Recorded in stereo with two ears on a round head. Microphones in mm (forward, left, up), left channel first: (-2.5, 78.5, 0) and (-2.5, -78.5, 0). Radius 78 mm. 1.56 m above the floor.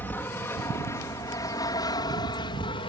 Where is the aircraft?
10° left (ahead or behind); by 2.9 s 25° left (ahead or behind).